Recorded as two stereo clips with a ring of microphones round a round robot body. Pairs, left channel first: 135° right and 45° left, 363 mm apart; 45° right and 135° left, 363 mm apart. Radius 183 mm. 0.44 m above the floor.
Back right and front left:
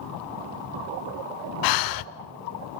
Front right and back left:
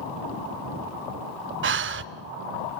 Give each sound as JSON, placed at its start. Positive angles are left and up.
{"t": 1.6, "sound": "breathing", "azimuth_deg": -165, "distance_m": 0.6}